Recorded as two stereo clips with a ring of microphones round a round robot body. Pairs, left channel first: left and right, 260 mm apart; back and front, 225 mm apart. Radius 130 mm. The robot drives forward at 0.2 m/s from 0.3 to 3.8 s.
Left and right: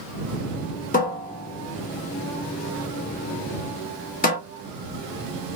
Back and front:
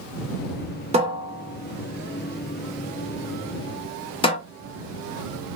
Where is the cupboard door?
50° left, 0.7 m; by 4.4 s 125° left, 0.7 m.